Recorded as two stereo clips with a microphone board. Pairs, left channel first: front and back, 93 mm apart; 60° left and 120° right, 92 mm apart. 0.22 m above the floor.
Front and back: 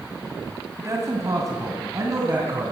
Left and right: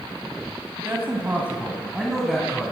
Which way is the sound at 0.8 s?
160° right.